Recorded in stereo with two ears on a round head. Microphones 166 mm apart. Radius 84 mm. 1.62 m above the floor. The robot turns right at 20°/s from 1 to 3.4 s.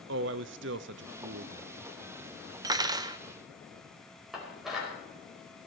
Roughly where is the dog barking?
No dog barking in this recording.